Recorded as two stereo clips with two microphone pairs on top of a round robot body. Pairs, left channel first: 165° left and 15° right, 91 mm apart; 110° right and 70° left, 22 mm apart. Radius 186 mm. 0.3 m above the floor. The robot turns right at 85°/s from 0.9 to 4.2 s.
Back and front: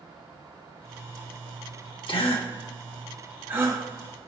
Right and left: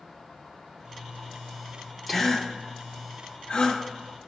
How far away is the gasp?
About 2 m.